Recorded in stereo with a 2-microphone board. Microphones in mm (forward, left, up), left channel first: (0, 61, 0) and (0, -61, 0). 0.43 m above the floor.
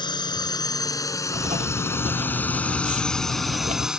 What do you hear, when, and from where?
0.0 s a drone: 40° left (ahead or behind); by 4.0 s 5° right (ahead or behind)
1.3 s writing: 80° right